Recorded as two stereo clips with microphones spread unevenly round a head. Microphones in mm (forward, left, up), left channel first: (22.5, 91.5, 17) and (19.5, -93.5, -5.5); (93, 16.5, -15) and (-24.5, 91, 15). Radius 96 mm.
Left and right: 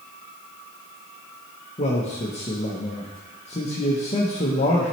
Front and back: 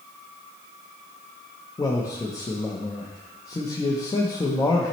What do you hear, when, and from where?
1.8 s a man speaking: 35° left, 0.8 m